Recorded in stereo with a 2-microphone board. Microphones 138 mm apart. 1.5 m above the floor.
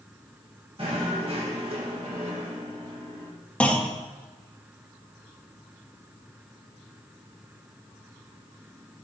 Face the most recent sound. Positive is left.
turn(degrees=10)  # may be behind; listen again after turning